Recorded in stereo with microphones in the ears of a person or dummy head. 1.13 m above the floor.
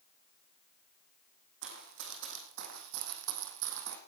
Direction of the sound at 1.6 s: 65° right (ahead or behind).